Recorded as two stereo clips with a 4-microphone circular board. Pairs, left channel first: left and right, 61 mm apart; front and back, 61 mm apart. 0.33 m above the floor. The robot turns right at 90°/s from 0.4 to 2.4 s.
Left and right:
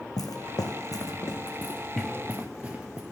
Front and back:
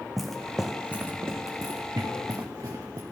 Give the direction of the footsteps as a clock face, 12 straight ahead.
9 o'clock.